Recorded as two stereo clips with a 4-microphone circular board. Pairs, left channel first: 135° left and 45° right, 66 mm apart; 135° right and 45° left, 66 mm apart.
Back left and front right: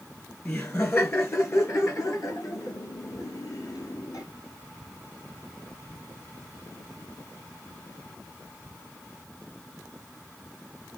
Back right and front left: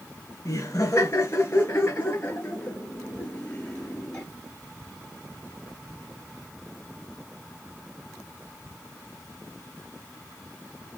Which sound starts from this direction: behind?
Laughter, at 0.5 s.